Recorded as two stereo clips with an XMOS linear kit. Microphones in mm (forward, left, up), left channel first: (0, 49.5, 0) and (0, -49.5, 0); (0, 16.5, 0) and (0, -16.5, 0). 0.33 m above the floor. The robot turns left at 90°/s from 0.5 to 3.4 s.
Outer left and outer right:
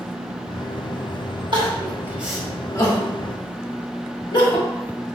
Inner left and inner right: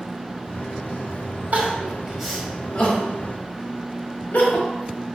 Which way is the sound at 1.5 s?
55° right (ahead or behind).